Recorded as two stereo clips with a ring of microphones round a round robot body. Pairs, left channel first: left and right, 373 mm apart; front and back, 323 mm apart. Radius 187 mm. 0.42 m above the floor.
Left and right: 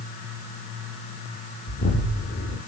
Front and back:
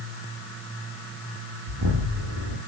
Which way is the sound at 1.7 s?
150° left.